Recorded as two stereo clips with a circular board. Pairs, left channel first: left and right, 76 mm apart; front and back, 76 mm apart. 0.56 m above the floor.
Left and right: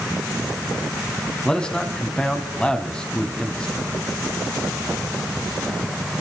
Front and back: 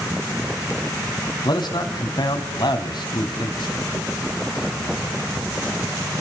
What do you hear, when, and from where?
1.4 s a man speaking: 10° left, 3.5 m